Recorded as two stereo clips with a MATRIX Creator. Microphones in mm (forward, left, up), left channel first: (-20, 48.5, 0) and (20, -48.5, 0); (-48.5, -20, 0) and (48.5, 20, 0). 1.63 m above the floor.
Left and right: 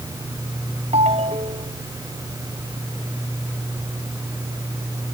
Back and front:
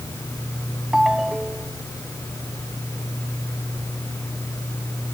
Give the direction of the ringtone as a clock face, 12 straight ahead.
2 o'clock.